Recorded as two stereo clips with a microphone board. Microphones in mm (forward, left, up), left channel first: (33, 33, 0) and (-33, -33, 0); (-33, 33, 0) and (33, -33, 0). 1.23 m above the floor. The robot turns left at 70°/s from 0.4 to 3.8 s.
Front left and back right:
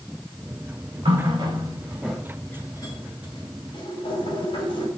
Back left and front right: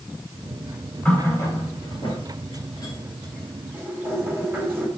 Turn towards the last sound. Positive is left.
turn(degrees=20)